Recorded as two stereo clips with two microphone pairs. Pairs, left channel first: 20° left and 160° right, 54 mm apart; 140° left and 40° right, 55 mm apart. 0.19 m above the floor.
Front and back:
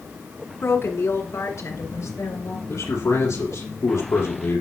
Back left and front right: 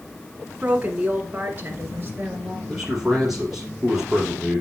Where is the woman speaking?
20° left, 1.5 m; by 2.6 s 10° left, 2.5 m.